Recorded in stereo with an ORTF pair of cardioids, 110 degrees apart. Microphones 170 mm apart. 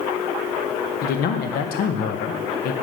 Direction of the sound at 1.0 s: 65° left.